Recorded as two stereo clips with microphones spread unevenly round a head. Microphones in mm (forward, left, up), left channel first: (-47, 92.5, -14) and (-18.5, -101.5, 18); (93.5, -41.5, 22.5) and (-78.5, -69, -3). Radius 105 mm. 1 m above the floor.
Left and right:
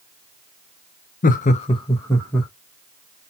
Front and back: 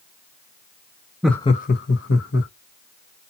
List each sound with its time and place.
1.2 s laughter: 115° left, 0.5 m; by 2.5 s 15° left, 1.4 m